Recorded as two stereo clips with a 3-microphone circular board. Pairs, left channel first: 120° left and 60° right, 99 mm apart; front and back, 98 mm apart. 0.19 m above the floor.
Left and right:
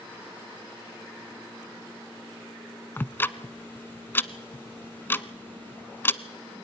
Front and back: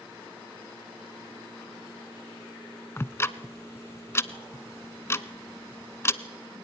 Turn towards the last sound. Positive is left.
turn(degrees=55)